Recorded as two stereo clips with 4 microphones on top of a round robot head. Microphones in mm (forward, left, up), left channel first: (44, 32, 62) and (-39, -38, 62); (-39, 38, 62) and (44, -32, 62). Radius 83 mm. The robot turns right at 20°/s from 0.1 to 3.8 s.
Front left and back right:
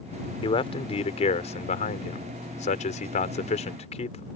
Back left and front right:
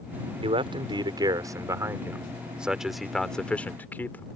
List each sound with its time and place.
0.4 s a man speaking: 5° right; by 4.3 s 65° left